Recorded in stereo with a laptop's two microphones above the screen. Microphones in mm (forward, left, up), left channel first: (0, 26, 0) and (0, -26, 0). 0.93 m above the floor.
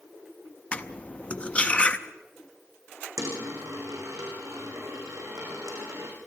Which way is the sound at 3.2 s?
80° right.